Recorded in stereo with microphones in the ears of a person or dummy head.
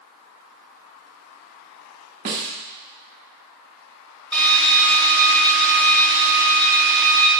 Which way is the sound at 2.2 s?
25° right (ahead or behind).